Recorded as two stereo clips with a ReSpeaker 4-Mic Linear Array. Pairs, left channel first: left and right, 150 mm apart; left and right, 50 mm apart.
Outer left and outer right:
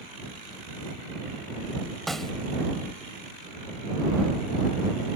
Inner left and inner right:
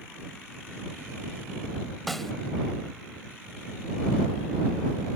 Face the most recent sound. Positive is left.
turn(degrees=0)  # may be behind; listen again after turning